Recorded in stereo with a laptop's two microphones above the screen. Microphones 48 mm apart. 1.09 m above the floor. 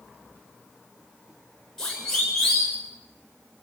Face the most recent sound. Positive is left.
turn(degrees=10)  # may be behind; listen again after turning